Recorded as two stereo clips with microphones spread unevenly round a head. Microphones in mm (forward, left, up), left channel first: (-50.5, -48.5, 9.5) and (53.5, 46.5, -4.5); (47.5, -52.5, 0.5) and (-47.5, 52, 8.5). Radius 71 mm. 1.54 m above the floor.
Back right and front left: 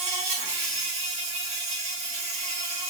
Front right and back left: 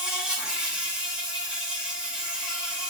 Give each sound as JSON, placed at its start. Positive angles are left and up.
{"t": 0.0, "sound": "an insect", "azimuth_deg": 50, "distance_m": 0.8}